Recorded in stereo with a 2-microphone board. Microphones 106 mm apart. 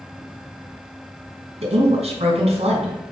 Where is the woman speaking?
70° right (ahead or behind), 3.5 m.